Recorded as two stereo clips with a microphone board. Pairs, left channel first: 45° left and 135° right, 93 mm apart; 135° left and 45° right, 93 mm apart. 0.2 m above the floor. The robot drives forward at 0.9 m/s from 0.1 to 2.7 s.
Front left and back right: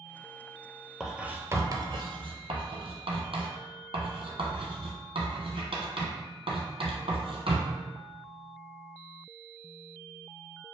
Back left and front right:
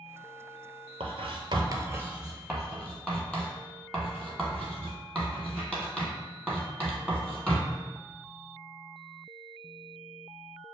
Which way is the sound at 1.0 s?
50° right.